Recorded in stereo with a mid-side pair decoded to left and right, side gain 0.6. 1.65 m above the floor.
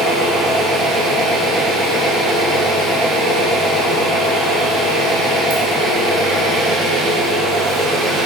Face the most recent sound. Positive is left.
turn(degrees=-60)